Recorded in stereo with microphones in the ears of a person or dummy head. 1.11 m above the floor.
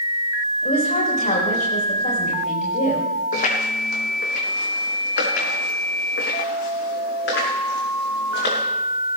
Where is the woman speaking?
45° left (ahead or behind), 4.5 m.